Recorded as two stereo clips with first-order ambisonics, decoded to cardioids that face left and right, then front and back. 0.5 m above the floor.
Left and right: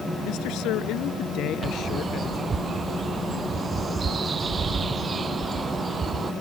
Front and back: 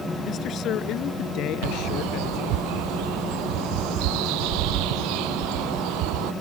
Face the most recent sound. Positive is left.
turn(degrees=-160)